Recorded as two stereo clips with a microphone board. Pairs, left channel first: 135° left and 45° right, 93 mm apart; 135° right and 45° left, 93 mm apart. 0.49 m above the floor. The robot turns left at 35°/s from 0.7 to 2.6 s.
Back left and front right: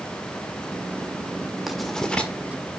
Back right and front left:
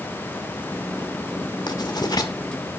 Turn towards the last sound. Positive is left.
turn(degrees=-165)